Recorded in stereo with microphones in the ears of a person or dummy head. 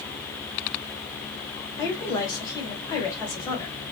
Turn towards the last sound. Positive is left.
turn(degrees=20)  # may be behind; listen again after turning